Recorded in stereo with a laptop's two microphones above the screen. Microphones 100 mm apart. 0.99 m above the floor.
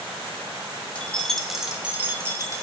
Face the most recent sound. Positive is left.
turn(degrees=-35)  # may be behind; listen again after turning